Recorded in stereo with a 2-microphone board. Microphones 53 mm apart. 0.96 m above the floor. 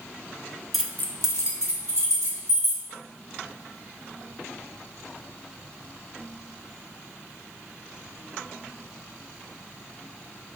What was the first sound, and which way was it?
Keys jangling, centre (ahead or behind).